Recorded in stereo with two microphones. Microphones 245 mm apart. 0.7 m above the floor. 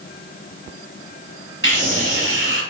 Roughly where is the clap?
I don't hear a clap.